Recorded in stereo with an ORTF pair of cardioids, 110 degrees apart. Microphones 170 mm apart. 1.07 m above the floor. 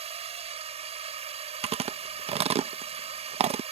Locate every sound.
0.0 s a drone: 40° right
1.6 s chewing: 40° right